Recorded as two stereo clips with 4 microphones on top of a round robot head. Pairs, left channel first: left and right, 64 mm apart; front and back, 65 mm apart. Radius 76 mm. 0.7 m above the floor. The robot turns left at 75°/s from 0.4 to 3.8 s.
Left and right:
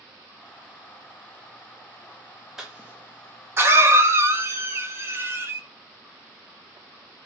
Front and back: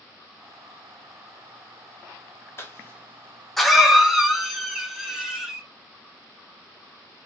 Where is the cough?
10° right, 1.2 m; by 5.6 s 105° right, 1.2 m.